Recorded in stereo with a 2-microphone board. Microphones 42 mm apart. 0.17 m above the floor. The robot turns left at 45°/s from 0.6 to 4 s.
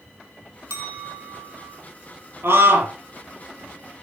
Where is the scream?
75° right (ahead or behind), 5.5 m; by 2.9 s 60° right (ahead or behind), 5.5 m.